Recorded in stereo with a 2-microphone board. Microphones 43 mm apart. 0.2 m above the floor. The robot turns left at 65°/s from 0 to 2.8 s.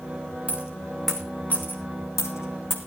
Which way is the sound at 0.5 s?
35° right (ahead or behind).